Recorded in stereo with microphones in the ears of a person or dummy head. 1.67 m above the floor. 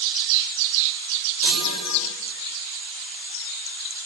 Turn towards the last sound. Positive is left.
turn(degrees=-65)  # may be behind; listen again after turning